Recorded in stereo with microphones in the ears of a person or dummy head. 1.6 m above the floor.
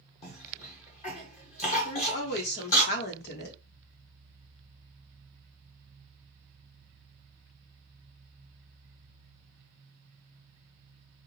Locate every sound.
0.2 s a cough: 45° left (ahead or behind), 0.7 m
1.9 s a woman speaking: 55° left (ahead or behind), 1.0 m